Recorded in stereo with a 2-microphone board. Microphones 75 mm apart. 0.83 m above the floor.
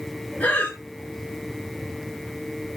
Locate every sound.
0.4 s breathing: 20° left (ahead or behind), 2.5 m